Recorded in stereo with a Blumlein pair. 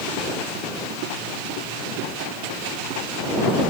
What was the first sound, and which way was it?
Only background noise.